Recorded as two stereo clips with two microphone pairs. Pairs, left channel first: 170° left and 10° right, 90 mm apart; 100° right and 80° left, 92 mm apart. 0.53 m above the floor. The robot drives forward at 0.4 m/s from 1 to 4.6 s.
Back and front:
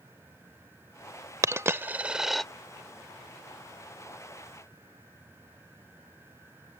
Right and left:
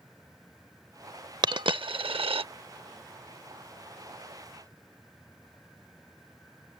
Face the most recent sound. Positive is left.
turn(degrees=145)